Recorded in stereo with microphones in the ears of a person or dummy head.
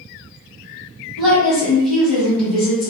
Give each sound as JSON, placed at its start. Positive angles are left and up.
{"t": 1.2, "sound": "a woman speaking", "side_deg": -10, "distance_m": 1.3}